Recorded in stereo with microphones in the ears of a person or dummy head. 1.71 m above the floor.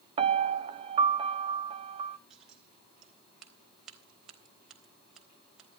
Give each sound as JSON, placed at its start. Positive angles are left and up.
{"t": 0.2, "sound": "a piano", "side_deg": -40, "distance_m": 0.9}
{"t": 2.3, "sound": "scissors", "side_deg": 5, "distance_m": 3.5}